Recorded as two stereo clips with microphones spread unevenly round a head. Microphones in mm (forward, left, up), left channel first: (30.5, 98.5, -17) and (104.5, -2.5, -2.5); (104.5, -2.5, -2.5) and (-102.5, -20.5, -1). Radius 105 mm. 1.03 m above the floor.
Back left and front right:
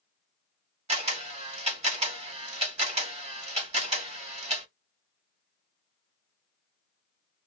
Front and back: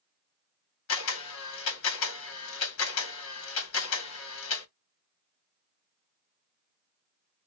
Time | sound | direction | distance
0.9 | a camera shutter | 20° right | 1.6 m